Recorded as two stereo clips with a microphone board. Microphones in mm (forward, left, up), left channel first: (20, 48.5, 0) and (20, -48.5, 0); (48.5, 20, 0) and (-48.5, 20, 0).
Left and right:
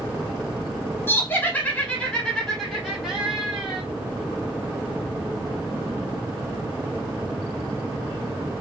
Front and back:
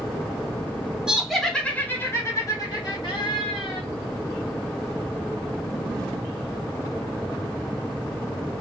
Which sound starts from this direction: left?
Laughter, at 1.1 s.